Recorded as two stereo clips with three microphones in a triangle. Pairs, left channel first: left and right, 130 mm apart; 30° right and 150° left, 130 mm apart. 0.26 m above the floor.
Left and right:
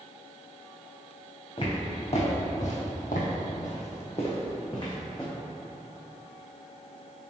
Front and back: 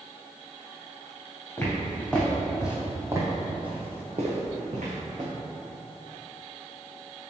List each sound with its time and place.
1.6 s footsteps: 45° left, 1.3 m; by 5.3 s 150° left, 1.3 m